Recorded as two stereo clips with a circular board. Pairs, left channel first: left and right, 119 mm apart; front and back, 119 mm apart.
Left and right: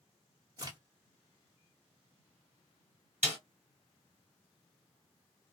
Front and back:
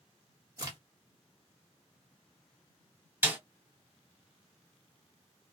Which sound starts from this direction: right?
A snare drum, at 3.2 s.